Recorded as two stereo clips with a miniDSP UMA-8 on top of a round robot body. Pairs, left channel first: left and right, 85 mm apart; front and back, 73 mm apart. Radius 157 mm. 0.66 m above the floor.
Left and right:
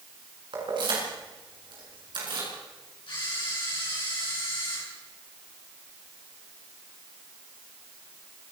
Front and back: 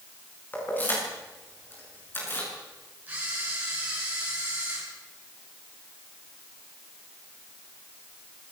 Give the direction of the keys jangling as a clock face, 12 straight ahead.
2 o'clock.